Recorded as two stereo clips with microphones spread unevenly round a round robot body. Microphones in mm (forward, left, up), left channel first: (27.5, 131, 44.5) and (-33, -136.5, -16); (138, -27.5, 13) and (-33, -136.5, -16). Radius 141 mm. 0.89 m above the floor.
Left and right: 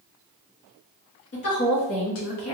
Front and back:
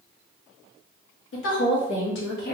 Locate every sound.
1.3 s a woman speaking: 25° left, 1.8 m; by 2.5 s 65° left, 1.0 m